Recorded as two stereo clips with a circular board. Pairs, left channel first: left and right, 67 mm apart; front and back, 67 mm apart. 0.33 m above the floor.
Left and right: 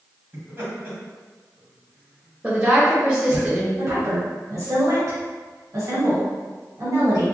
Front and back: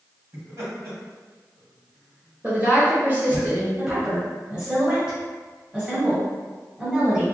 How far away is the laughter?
About 1.7 m.